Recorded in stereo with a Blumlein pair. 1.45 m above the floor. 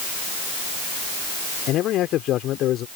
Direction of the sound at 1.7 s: 35° left.